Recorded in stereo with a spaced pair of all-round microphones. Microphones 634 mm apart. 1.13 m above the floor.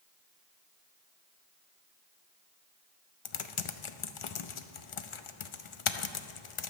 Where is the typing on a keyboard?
55° left (ahead or behind), 0.6 m.